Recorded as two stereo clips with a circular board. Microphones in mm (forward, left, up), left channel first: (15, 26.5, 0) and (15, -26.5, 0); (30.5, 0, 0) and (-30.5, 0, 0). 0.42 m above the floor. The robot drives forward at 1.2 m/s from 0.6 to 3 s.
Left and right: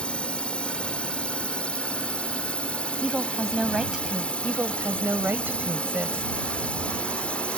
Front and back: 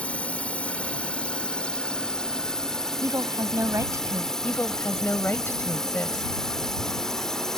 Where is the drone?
45° left; by 7.6 s 70° left.